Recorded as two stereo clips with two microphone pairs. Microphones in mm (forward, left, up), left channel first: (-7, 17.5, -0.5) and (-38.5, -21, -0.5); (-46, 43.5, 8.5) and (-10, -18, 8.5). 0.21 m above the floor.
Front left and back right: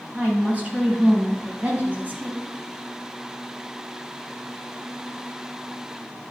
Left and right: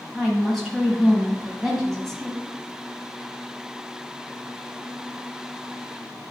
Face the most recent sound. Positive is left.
turn(degrees=-150)